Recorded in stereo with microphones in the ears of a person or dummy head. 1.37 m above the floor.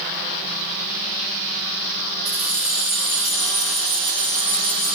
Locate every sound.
2.2 s keys jangling: 10° right (ahead or behind), 0.8 m; by 5.0 s 5° left (ahead or behind), 2 m